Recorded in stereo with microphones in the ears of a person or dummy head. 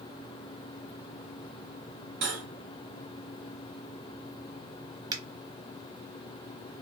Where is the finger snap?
25° right (ahead or behind), 0.9 m.